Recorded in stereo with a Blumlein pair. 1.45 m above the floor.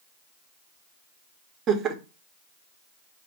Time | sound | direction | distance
1.7 | laughter | 30° right | 1.0 m